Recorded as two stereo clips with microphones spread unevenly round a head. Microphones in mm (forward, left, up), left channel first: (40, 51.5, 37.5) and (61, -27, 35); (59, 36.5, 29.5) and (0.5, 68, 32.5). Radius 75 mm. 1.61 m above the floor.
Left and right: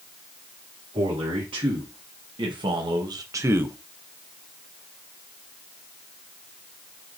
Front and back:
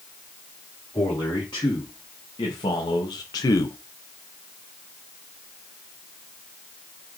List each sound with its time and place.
0.9 s a man speaking: 70° right, 1.9 m; by 3.8 s 5° right, 0.5 m